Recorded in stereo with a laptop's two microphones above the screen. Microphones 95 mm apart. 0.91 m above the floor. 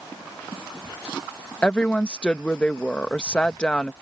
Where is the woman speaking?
10° left (ahead or behind).